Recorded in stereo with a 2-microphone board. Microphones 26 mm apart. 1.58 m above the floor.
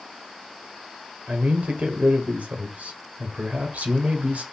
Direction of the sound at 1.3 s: 75° right (ahead or behind).